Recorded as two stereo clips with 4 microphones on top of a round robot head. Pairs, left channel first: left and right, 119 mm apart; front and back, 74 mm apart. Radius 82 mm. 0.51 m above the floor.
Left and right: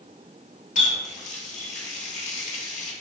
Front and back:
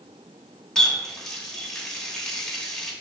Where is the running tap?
80° left, 1.2 m.